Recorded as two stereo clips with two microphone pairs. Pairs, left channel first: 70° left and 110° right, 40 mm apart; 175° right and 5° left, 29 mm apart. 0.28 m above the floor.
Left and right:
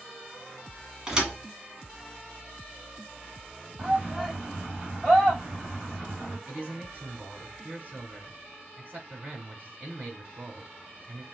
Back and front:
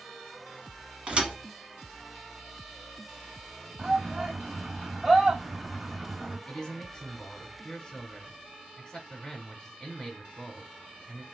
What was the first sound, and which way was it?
A thud, 40° right.